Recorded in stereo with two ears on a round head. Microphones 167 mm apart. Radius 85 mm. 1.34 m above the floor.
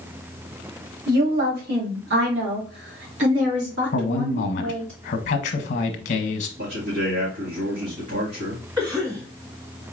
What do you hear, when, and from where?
1.1 s a woman speaking: 50° right (ahead or behind), 2.5 m; by 4.9 s 85° right, 3 m
3.9 s a man speaking: 55° left (ahead or behind), 1.0 m
6.6 s a man speaking: 70° right (ahead or behind), 2.0 m
8.8 s a cough: 10° right (ahead or behind), 1.5 m